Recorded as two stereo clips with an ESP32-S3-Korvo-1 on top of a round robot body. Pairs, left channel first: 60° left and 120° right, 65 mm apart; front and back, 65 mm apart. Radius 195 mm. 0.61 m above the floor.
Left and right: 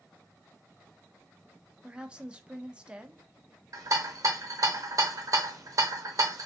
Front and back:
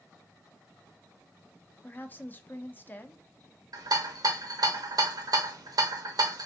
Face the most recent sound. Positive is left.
turn(degrees=-155)